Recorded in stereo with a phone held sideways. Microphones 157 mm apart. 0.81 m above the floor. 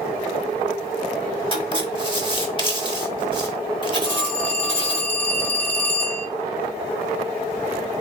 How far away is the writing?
About 1.0 m.